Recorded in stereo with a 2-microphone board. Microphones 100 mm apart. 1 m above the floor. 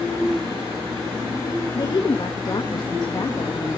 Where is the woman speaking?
40° left (ahead or behind), 1.6 m.